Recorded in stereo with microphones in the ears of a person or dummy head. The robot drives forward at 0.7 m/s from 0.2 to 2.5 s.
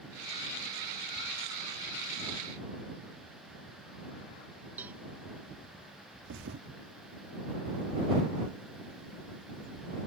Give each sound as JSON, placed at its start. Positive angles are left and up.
{"t": 4.8, "sound": "a cowbell", "side_deg": -10}
{"t": 6.2, "sound": "a thud", "side_deg": -60}